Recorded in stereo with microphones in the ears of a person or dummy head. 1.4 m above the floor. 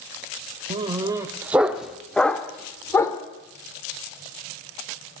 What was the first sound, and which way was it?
A dog barking, 30° right (ahead or behind).